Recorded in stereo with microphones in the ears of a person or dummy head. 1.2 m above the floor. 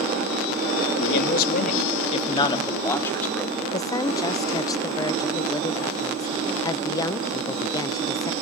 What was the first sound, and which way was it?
A man speaking, 70° left (ahead or behind).